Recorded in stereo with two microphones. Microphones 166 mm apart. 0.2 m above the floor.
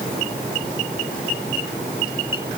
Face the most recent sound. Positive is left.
No sound to turn to.